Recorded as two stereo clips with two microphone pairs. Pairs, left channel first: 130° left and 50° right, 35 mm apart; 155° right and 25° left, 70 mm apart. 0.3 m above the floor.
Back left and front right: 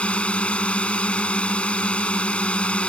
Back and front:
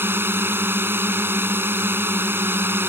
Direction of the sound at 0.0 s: 80° left.